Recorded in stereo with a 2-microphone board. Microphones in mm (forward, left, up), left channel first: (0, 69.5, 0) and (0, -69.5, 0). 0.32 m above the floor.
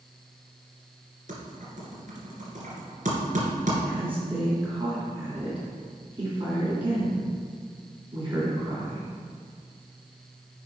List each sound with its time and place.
1.3 s typing on a keyboard: 70° right (ahead or behind), 2.5 m
3.9 s a woman speaking: 40° right (ahead or behind), 2.5 m